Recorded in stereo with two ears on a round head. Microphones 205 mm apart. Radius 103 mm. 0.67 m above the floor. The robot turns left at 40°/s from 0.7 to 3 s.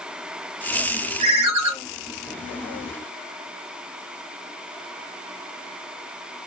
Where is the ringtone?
75° right (ahead or behind), 0.7 m; by 1.7 s 80° right, 0.7 m.